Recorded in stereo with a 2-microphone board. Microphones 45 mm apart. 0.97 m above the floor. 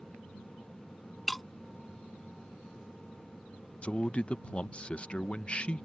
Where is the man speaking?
25° left (ahead or behind).